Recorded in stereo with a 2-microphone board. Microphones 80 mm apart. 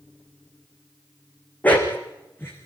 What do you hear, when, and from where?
1.6 s a dog barking: 20° left (ahead or behind), 5.5 m; by 2.7 s 30° left (ahead or behind), 5.5 m